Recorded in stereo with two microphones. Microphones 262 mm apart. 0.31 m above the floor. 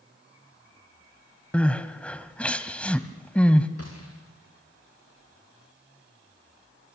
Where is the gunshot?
60° left (ahead or behind), 5 m.